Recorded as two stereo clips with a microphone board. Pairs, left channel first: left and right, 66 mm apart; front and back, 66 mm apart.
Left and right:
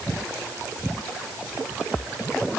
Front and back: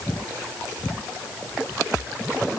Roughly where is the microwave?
No microwave in this recording.